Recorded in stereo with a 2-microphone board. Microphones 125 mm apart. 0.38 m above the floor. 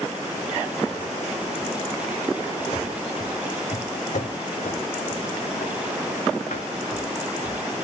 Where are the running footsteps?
35° left (ahead or behind), 0.8 m; by 7.8 s 85° left, 3.5 m.